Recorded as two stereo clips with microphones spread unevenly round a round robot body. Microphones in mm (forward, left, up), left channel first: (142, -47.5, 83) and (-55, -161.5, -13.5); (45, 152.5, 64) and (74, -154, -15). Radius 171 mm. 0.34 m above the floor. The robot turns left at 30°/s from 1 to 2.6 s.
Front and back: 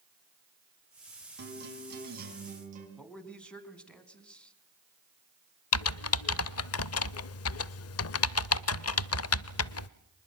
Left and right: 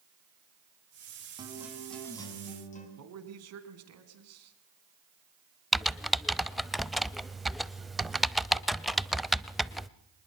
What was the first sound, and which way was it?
A guitar, 155° right.